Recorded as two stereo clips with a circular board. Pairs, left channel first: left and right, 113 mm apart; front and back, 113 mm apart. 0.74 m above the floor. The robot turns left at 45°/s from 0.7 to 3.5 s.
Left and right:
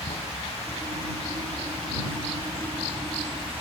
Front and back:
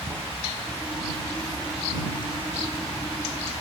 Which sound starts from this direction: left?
Running water, at 0.0 s.